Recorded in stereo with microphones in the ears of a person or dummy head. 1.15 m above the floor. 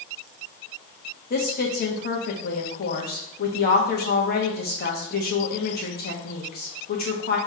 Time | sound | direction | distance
1.3 | a woman speaking | 45° left (ahead or behind) | 1.0 m